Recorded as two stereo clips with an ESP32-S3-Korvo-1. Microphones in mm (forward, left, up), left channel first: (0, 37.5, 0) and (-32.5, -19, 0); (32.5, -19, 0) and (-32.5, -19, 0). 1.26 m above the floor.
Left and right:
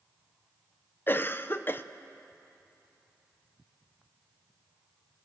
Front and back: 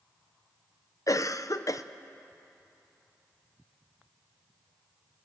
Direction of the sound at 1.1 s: 10° left.